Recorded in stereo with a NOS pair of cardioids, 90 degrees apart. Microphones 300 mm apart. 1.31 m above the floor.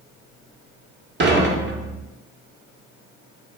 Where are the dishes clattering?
40° right, 2.0 m.